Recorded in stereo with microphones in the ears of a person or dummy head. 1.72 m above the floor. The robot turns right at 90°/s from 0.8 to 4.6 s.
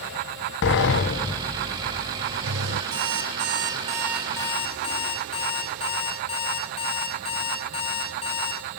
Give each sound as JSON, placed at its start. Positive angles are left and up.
{"t": 0.6, "sound": "a sliding door", "azimuth_deg": 105, "distance_m": 1.1}
{"t": 2.9, "sound": "an alarm clock", "azimuth_deg": -115, "distance_m": 6.5}